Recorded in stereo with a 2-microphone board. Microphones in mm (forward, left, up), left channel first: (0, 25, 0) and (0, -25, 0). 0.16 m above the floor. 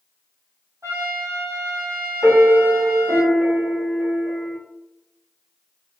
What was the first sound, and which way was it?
A trumpet, 85° right.